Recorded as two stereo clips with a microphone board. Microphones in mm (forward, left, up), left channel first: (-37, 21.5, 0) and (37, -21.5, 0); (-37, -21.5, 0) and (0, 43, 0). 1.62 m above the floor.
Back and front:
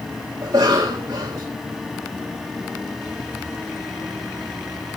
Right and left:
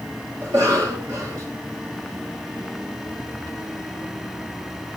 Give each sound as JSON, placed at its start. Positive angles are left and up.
{"t": 0.4, "sound": "a cough", "azimuth_deg": 15, "distance_m": 1.4}